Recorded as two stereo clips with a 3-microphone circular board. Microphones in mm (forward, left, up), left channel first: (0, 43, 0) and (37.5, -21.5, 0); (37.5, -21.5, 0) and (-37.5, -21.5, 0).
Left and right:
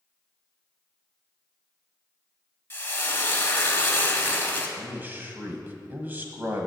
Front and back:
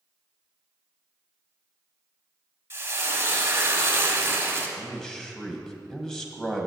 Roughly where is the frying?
Behind left.